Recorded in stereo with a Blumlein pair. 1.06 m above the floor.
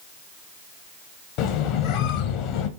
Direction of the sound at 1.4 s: 40° left.